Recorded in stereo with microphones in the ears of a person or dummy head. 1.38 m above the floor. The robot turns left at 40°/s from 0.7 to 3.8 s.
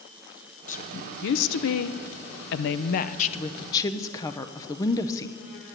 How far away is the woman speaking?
About 0.6 m.